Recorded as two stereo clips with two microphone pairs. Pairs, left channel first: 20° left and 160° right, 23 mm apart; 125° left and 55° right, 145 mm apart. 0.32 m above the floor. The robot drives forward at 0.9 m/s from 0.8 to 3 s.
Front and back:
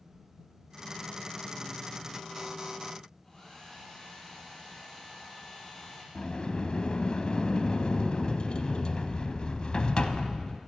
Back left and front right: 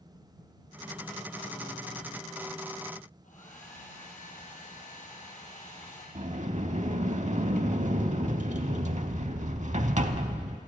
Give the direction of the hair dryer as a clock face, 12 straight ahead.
9 o'clock.